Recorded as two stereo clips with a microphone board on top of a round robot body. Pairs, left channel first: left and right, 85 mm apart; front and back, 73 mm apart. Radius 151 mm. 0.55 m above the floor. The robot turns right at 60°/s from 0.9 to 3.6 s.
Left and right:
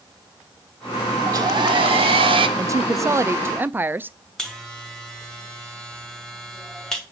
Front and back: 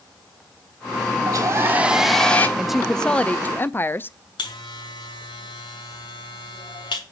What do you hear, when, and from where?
1.3 s a hair dryer: 140° right, 1.0 m; by 2.5 s 70° right, 1.0 m
2.6 s a woman speaking: 100° right, 0.6 m; by 4.2 s 40° right, 0.6 m
4.4 s a buzzer: 5° left, 2 m